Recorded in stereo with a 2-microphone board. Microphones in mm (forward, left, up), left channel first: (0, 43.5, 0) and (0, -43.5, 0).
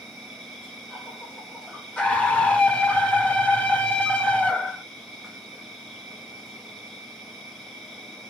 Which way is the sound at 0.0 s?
Centre (ahead or behind).